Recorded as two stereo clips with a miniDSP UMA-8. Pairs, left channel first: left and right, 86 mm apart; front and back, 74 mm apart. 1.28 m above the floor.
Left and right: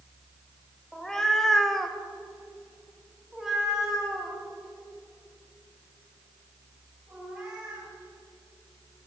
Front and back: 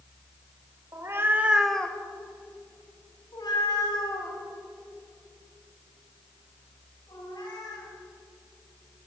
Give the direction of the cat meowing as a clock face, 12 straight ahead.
6 o'clock.